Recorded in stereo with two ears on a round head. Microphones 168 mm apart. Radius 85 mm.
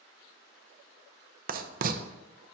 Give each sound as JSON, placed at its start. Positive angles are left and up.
{"t": 1.5, "sound": "writing", "side_deg": -45, "distance_m": 0.6}